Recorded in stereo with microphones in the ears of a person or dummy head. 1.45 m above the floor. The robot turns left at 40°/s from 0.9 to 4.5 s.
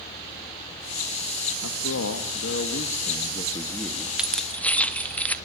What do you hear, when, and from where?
1.6 s a man speaking: 100° left, 1.7 m; by 4.1 s straight ahead, 1.7 m
4.2 s keys jangling: 5° right (ahead or behind), 0.8 m; by 5.3 s 5° left (ahead or behind), 0.8 m